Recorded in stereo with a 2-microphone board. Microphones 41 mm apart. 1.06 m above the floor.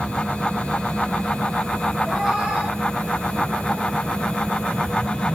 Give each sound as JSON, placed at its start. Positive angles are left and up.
{"t": 2.0, "sound": "a cat meowing", "side_deg": -15, "distance_m": 2.0}